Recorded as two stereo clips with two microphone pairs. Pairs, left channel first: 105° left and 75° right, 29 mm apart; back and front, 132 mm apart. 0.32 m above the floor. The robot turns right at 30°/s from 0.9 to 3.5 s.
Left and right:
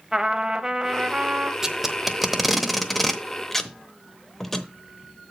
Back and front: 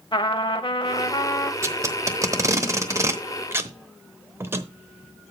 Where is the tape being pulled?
20° right, 0.9 m; by 4.7 s 35° left, 0.9 m.